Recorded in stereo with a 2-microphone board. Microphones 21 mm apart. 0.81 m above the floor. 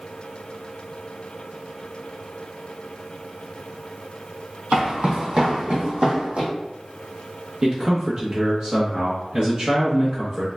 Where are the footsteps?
55° right (ahead or behind), 1.8 m; by 6.5 s 70° right (ahead or behind), 2.5 m.